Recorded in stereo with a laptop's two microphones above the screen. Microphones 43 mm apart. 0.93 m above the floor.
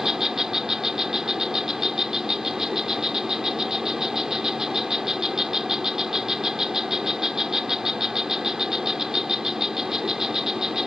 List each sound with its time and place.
0.0 s an insect: 10° right (ahead or behind)